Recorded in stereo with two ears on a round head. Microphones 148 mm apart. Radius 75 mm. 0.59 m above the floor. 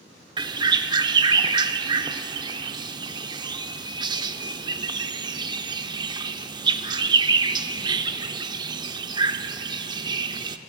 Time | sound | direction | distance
0.4 | a bird | 25° right (ahead or behind) | 0.5 m